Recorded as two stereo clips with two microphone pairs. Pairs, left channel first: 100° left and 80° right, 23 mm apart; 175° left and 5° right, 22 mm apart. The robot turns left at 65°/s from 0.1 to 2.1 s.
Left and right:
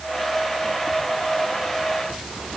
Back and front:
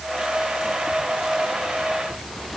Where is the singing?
No singing in this recording.